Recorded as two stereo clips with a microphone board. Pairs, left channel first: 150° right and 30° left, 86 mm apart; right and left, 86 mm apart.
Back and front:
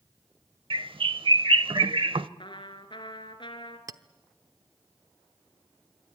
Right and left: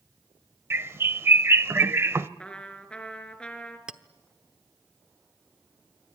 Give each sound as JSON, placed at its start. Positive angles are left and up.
{"t": 0.7, "sound": "a bird", "azimuth_deg": 30, "distance_m": 0.6}
{"t": 2.4, "sound": "a trumpet", "azimuth_deg": -170, "distance_m": 2.0}
{"t": 3.9, "sound": "a clink", "azimuth_deg": 15, "distance_m": 0.9}